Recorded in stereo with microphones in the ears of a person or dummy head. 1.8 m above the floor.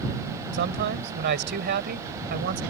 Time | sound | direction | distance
0.5 | a man speaking | 50° right (ahead or behind) | ?